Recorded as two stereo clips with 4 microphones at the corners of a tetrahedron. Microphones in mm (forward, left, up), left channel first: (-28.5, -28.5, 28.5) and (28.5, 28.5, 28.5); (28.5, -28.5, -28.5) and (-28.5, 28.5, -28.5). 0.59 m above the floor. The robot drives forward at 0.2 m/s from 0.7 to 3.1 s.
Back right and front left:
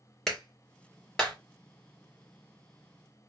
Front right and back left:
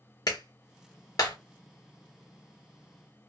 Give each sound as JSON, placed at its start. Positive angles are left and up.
{"t": 0.3, "sound": "a clap", "azimuth_deg": -55, "distance_m": 1.7}